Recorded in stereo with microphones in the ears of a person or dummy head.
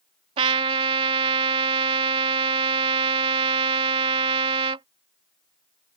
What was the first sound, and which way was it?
A trumpet, 30° right (ahead or behind).